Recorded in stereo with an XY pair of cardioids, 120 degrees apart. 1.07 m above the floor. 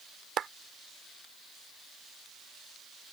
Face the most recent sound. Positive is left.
turn(degrees=-50)